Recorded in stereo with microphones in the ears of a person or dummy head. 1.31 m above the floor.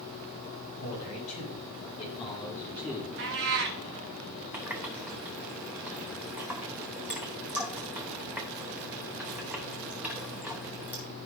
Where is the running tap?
10° right (ahead or behind), 0.8 m.